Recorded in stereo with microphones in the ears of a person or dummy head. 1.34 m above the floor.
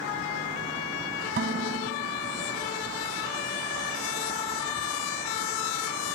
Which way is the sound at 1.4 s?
50° right (ahead or behind).